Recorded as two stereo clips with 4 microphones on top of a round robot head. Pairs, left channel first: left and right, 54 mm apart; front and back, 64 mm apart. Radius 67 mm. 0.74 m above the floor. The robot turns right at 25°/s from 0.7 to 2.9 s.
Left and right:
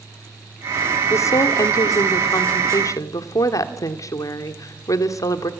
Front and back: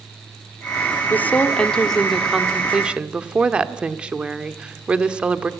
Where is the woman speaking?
65° left, 1.8 m; by 5.5 s 110° left, 1.8 m.